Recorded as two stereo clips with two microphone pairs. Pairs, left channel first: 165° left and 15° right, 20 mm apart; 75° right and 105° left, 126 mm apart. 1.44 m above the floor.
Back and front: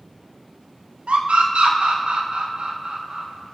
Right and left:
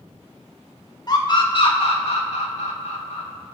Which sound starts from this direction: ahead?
A scream, at 1.1 s.